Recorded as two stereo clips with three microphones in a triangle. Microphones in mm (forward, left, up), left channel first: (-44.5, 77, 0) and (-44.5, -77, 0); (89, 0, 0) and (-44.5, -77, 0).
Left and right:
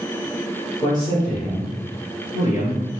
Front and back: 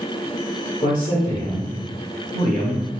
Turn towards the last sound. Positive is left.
turn(degrees=120)